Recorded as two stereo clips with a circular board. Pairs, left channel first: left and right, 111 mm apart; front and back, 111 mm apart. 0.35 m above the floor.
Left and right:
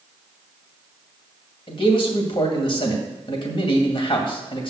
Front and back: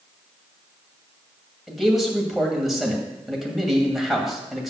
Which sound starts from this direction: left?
A man speaking, at 1.7 s.